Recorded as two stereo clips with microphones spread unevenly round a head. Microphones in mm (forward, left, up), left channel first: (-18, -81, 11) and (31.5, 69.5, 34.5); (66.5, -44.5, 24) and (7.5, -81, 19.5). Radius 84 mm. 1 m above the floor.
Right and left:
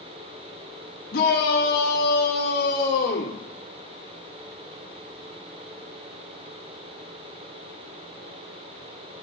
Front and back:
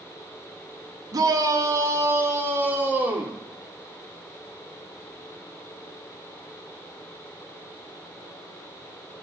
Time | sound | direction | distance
1.1 | a shout | 125° right | 1.6 m